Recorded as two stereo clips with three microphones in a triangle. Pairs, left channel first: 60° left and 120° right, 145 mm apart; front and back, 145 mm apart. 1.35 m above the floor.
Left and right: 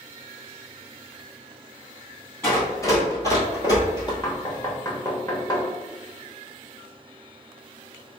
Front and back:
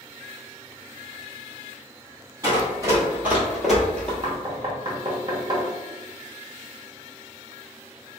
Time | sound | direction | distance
2.4 | running footsteps | 125° left | 1.9 m
4.2 | knocking | 125° left | 1.1 m